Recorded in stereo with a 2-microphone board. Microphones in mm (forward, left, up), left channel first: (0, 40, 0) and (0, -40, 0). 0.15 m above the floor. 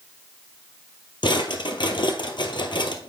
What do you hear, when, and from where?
1.2 s a drawer: 75° left (ahead or behind), 1.2 m